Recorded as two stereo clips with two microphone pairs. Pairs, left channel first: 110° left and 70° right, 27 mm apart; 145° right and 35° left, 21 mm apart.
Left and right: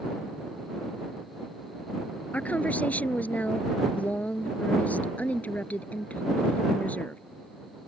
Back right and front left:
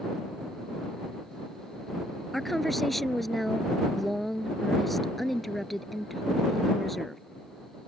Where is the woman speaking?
130° left.